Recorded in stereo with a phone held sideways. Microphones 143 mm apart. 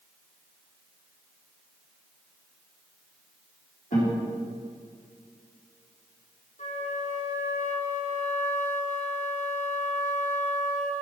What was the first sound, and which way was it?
A guitar, 65° left (ahead or behind).